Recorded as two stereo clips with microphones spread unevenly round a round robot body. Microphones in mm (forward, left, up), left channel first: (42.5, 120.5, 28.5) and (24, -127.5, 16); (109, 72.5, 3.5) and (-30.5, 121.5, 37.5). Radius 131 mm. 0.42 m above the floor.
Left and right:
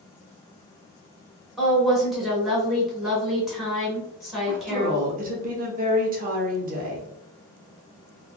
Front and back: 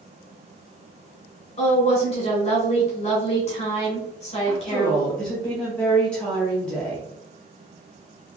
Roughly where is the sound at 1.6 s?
Ahead.